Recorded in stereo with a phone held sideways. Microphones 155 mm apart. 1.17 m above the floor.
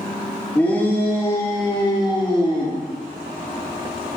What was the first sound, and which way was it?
A shout, 10° left (ahead or behind).